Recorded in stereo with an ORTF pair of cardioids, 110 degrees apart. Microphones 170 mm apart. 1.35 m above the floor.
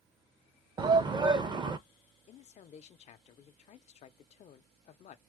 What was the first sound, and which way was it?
A shout, 30° right.